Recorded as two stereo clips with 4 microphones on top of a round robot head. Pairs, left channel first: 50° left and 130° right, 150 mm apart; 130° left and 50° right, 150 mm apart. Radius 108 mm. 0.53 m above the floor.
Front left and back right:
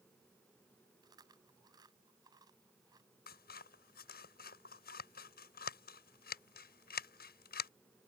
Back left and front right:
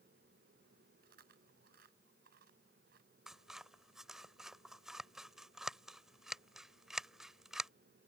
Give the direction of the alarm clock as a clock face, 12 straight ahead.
I don't hear an alarm clock.